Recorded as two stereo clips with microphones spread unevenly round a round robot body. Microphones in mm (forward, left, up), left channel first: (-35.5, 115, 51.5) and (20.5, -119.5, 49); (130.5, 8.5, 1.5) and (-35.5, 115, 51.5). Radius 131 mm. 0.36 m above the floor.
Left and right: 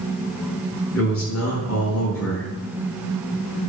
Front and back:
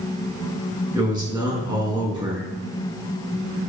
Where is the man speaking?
75° left, 5.5 m.